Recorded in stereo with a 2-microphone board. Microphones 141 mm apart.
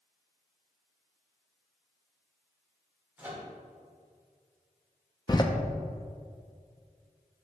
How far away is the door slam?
About 0.6 m.